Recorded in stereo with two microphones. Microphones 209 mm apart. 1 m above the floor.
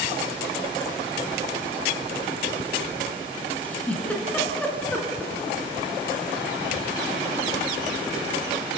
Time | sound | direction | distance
3.6 | a giggle | 5° left (ahead or behind) | 4 m